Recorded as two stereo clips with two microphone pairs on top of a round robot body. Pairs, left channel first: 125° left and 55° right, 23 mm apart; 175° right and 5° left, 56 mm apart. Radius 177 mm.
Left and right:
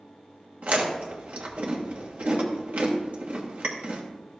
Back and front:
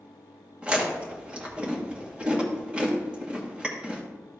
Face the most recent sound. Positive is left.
turn(degrees=-65)